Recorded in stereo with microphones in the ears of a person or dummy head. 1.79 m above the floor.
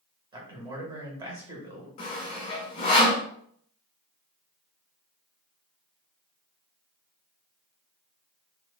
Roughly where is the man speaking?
Centre.